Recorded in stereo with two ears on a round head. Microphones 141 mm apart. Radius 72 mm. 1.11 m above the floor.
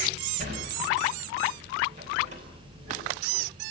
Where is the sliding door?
45° right (ahead or behind), 5 m.